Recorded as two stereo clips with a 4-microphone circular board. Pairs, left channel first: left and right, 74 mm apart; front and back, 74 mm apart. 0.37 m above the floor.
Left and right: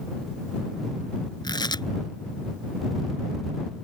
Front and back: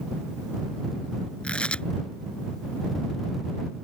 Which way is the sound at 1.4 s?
75° left.